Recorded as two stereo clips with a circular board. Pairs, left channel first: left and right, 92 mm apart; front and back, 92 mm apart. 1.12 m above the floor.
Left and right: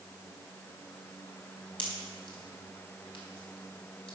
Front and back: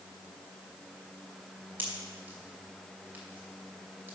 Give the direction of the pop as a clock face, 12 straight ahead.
8 o'clock.